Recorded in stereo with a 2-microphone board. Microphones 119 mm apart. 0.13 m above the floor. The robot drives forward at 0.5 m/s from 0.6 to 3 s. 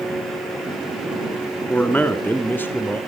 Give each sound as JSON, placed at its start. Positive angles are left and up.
{"t": 1.7, "sound": "a man speaking", "side_deg": 15, "distance_m": 1.2}